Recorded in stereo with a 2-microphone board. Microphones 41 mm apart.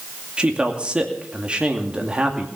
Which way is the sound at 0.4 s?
25° right (ahead or behind).